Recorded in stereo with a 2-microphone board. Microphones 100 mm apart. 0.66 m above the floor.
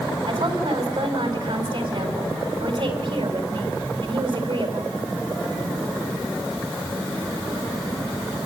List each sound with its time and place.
0.3 s a woman speaking: 55° right (ahead or behind), 4.5 m